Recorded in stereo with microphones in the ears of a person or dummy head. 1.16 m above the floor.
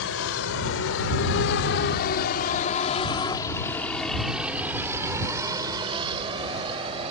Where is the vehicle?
85° left; by 7.1 s 30° right (ahead or behind).